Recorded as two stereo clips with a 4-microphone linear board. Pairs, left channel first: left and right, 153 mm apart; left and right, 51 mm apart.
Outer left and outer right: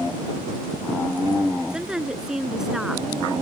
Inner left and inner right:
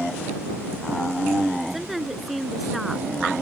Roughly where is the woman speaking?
Centre.